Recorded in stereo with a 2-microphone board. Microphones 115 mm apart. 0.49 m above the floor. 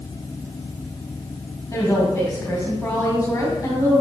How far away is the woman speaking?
About 2.5 m.